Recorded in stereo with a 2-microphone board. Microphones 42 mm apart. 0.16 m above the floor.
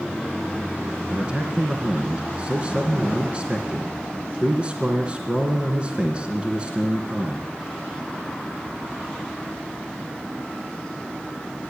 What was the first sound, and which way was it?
A man speaking, 25° right (ahead or behind).